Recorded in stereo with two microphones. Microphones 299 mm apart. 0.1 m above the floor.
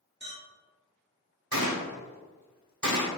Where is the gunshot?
75° right (ahead or behind), 0.8 m.